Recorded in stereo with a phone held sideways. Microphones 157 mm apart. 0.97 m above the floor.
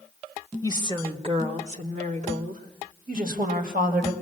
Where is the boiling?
No boiling in this recording.